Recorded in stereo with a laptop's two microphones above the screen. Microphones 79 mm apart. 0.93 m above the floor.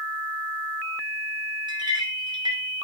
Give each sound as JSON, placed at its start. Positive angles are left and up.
{"t": 1.7, "sound": "a clink", "side_deg": -70, "distance_m": 0.6}